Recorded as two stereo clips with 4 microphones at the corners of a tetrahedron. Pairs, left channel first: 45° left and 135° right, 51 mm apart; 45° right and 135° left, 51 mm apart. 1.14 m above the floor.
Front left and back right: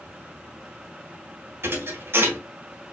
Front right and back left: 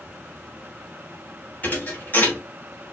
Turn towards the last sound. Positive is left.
turn(degrees=-100)